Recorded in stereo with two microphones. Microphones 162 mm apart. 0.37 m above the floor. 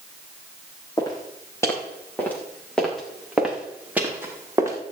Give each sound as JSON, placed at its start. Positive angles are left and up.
{"t": 1.0, "sound": "footsteps", "side_deg": 20, "distance_m": 4.5}